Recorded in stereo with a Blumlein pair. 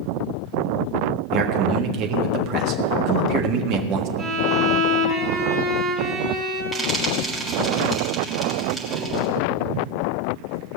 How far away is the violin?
About 4 m.